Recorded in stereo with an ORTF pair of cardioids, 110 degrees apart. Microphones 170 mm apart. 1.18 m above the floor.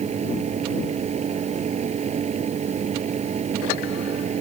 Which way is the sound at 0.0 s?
40° right.